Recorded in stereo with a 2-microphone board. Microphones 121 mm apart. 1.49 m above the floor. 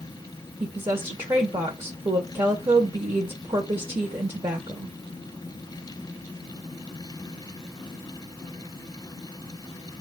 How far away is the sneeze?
No sneeze in this recording.